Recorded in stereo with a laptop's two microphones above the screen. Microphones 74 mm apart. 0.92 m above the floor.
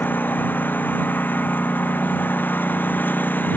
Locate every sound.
0.0 s a lawn mower: 25° left (ahead or behind)